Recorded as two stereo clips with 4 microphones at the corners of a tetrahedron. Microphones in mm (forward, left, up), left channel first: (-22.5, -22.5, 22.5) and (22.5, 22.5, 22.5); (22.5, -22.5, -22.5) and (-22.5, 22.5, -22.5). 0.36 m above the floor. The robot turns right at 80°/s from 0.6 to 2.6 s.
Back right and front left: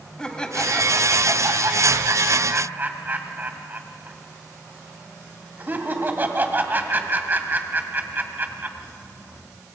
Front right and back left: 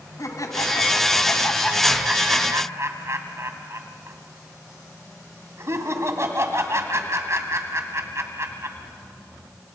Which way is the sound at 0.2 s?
60° right.